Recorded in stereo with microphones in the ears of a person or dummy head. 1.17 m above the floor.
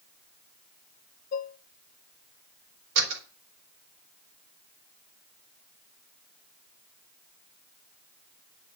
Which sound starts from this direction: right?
A door slam, at 3.0 s.